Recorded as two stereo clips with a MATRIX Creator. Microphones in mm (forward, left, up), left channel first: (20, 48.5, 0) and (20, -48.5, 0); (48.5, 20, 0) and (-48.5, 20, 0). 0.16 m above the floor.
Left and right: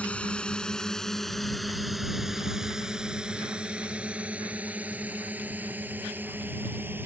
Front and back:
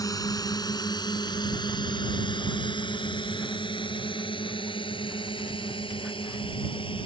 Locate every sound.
0.0 s a drone: 20° left; by 7.1 s 20° right